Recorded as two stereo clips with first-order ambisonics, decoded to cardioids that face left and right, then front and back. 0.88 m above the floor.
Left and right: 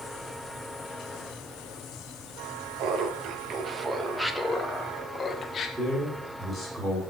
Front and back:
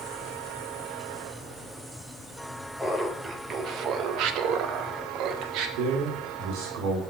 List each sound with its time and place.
2.8 s laughter: 95° right, 0.7 m; by 5.7 s 150° left, 1.3 m
5.8 s a man speaking: 170° right, 1.8 m